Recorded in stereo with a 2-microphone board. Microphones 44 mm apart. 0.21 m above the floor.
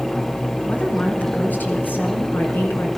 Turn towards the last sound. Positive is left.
turn(degrees=55)  # may be behind; listen again after turning